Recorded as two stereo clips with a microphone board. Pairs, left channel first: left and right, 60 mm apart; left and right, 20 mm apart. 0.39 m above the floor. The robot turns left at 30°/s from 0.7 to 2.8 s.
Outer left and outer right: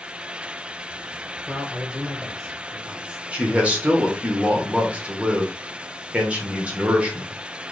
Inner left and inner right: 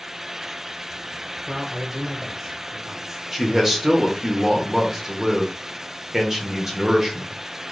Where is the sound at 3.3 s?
20° right (ahead or behind), 0.9 m.